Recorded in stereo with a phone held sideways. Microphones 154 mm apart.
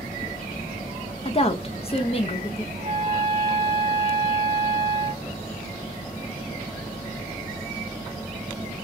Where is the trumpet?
50° right (ahead or behind), 1.3 m.